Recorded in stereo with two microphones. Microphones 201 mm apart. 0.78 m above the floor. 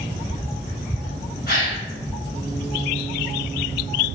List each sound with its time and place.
1.5 s a gasp: 50° left (ahead or behind), 1.9 m